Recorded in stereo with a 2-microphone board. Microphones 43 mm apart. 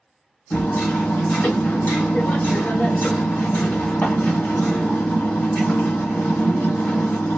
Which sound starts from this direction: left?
Hammering, at 0.5 s.